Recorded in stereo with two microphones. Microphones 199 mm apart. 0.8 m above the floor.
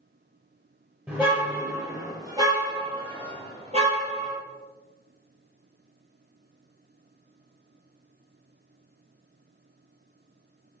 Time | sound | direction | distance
1.1 | a car horn | 10° right (ahead or behind) | 8 m